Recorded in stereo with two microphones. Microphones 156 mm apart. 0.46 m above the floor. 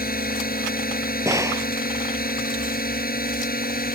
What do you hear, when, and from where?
0.0 s a drone: 70° left (ahead or behind)
1.2 s a gunshot: 20° right (ahead or behind)